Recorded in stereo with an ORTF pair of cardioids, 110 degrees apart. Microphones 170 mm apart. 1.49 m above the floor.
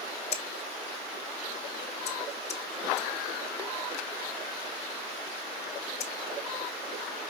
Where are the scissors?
40° left, 1.0 m.